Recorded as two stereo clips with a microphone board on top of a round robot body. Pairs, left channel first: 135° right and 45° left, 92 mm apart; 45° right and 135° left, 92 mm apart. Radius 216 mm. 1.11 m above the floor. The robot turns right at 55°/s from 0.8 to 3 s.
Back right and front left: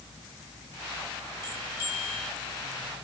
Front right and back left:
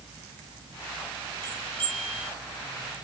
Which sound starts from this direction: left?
A bell, at 1.4 s.